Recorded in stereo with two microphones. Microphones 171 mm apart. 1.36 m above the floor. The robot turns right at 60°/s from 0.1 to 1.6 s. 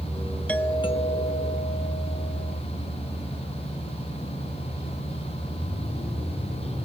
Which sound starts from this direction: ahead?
A doorbell, at 0.5 s.